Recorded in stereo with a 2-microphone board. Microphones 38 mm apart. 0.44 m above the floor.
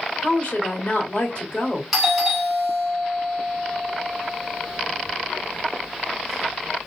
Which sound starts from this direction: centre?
A doorbell, at 1.9 s.